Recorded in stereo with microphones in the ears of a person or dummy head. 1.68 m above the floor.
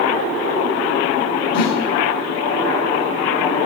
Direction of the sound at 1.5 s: 55° left (ahead or behind).